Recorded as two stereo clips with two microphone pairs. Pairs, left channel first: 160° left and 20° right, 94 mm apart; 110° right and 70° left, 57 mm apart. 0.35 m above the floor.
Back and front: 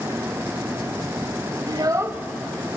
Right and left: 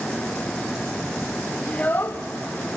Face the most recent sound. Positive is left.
turn(degrees=-140)